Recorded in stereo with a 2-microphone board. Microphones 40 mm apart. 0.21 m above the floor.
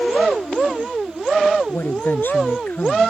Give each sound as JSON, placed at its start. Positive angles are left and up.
{"t": 1.7, "sound": "a woman speaking", "side_deg": 65}